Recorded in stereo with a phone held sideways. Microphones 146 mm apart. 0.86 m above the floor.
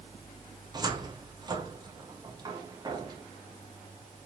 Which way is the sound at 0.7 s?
30° right (ahead or behind).